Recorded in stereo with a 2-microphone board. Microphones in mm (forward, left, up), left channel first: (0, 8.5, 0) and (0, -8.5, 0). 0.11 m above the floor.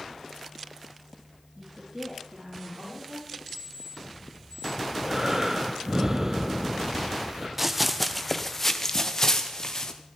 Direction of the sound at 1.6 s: 45° right (ahead or behind).